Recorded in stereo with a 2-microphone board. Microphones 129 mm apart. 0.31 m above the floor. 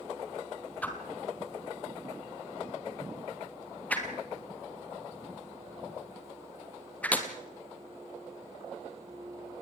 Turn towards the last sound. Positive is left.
turn(degrees=10)  # may be behind; listen again after turning